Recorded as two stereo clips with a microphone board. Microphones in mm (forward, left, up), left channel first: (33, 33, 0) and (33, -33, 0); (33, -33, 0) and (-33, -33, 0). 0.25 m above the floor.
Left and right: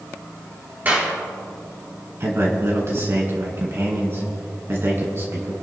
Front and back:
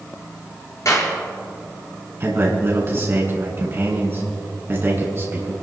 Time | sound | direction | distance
0.8 | a clap | 25° right | 4.5 m
2.2 | a man speaking | 130° right | 2.5 m